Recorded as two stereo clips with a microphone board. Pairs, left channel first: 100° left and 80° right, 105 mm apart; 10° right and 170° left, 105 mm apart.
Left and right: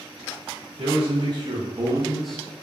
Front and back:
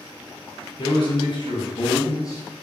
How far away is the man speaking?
About 1.2 m.